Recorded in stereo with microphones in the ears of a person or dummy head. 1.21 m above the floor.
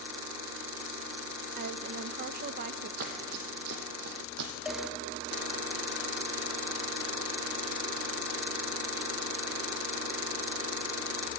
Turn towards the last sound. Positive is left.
turn(degrees=-5)  # may be behind; listen again after turning